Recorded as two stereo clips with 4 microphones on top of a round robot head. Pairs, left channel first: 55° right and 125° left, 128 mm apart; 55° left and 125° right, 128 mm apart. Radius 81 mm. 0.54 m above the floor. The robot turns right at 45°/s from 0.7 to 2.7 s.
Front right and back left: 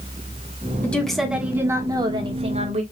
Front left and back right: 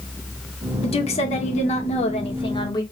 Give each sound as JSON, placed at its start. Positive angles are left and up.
{"t": 0.8, "sound": "a woman speaking", "azimuth_deg": 20, "distance_m": 1.4}